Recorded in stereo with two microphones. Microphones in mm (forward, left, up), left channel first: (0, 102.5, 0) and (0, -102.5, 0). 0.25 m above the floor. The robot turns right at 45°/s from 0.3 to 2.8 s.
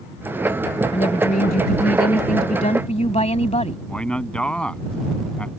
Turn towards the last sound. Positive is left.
turn(degrees=5)  # may be behind; listen again after turning